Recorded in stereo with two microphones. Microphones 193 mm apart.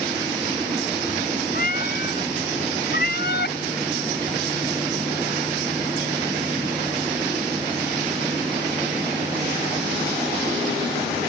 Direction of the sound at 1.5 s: 50° left (ahead or behind).